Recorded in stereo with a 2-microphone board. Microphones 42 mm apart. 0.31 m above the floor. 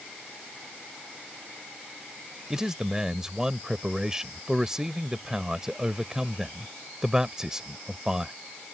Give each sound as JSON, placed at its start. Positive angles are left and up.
{"t": 2.5, "sound": "a man speaking", "side_deg": -15}